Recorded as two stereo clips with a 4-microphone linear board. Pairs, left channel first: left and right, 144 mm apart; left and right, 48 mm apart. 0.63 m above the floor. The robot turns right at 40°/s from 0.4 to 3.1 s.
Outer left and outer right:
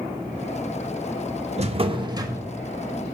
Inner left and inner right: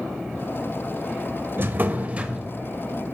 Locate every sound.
1.6 s a drawer: 55° right, 0.5 m; by 2.5 s 15° right, 0.5 m